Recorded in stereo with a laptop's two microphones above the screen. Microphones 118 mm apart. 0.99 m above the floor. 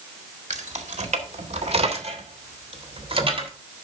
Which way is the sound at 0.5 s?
85° right.